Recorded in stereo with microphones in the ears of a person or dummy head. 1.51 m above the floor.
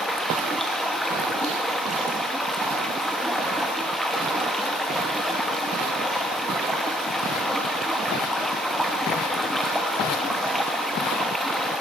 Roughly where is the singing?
I don't hear singing.